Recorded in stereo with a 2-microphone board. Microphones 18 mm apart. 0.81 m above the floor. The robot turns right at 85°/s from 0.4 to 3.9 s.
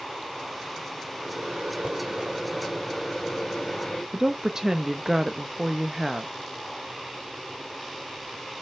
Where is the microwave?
125° right, 2.5 m; by 4.0 s 110° left, 2.5 m.